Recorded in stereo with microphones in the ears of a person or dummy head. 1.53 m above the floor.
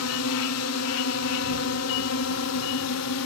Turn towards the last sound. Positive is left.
turn(degrees=75)  # may be behind; listen again after turning